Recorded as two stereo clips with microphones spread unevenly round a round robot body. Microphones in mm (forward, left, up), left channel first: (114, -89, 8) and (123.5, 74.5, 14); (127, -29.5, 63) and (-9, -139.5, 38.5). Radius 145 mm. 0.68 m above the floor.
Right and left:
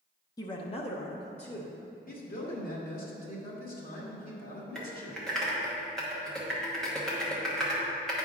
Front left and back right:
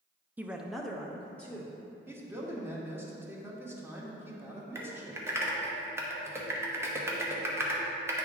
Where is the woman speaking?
95° right, 0.6 m; by 1.8 s 45° right, 1.8 m.